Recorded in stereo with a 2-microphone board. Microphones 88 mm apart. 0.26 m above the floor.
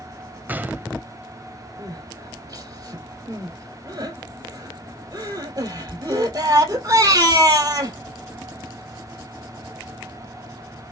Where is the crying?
45° right (ahead or behind), 2.0 m.